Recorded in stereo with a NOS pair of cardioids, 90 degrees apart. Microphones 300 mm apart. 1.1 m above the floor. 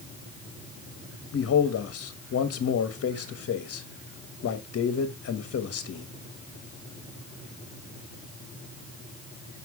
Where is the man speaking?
50° left, 1.4 m.